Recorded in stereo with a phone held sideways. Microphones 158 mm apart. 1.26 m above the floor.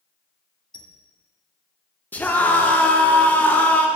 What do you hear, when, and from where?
0.7 s a squeak: 30° left (ahead or behind), 1.0 m
2.1 s a scream: 10° left (ahead or behind), 1.3 m